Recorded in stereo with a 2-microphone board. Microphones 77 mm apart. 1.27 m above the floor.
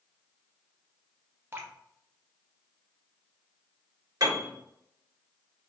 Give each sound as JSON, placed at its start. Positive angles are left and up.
{"t": 1.5, "sound": "dripping", "side_deg": -30, "distance_m": 0.8}
{"t": 4.2, "sound": "a piano", "side_deg": -55, "distance_m": 1.7}